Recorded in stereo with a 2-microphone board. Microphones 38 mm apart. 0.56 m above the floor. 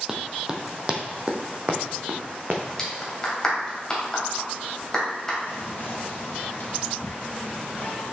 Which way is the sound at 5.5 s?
60° left (ahead or behind).